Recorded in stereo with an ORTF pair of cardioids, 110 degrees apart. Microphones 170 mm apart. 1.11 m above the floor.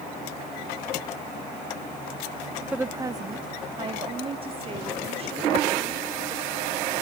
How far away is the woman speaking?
About 0.7 m.